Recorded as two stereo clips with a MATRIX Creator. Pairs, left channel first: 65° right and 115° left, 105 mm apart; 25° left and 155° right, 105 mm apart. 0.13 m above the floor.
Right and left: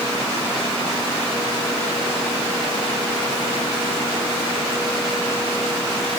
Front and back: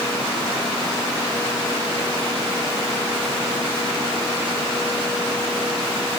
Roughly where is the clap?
No clap in this recording.